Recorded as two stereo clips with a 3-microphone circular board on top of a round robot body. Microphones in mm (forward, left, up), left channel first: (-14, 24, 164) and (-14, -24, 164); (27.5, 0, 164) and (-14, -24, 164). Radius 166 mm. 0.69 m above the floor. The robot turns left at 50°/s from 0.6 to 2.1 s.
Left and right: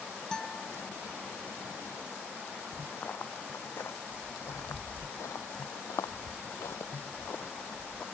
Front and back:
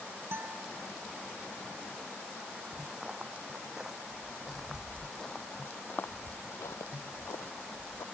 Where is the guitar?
170° left; by 0.7 s 160° left.